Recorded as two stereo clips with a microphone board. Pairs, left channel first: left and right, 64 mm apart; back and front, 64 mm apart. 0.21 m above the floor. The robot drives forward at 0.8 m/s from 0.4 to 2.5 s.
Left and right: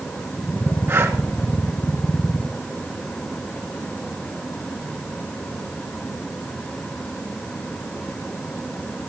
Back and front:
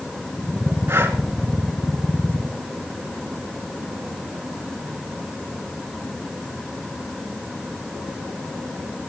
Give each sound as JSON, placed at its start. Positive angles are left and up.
{"t": 0.9, "sound": "breathing", "azimuth_deg": -45, "distance_m": 2.5}